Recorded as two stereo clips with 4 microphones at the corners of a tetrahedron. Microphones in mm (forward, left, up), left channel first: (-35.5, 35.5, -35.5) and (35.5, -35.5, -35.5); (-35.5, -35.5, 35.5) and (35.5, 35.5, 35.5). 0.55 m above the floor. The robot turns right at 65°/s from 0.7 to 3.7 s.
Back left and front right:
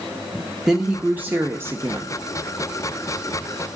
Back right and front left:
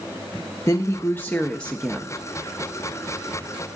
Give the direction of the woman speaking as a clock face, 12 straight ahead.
4 o'clock.